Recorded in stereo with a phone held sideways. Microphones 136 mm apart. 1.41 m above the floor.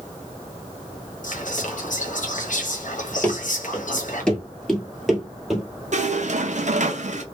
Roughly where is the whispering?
Left.